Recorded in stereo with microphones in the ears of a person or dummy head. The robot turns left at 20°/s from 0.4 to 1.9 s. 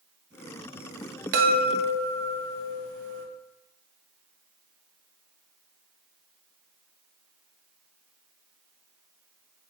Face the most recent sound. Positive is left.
turn(degrees=-60)  # may be behind; listen again after turning